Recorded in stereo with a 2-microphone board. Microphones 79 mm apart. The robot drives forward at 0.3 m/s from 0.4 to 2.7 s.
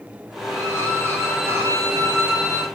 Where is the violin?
35° right (ahead or behind), 1.2 m; by 2.7 s 30° right (ahead or behind), 1.5 m.